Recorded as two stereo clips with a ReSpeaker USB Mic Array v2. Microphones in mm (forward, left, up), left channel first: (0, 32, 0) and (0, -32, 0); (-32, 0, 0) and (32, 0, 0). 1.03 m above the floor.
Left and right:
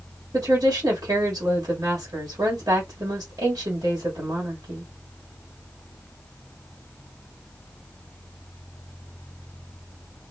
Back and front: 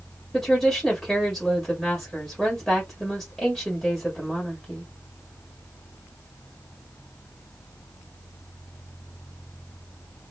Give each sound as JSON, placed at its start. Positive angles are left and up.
{"t": 0.3, "sound": "a woman speaking", "azimuth_deg": -100, "distance_m": 1.3}